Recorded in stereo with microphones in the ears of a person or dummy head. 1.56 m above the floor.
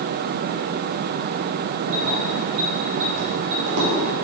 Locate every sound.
1.9 s keys jangling: 75° right (ahead or behind), 2 m